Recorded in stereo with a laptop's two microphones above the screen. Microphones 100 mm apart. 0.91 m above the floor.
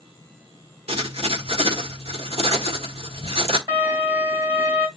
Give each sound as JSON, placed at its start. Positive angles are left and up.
{"t": 0.9, "sound": "writing", "side_deg": -90, "distance_m": 1.6}
{"t": 3.7, "sound": "a violin", "side_deg": -45, "distance_m": 3.0}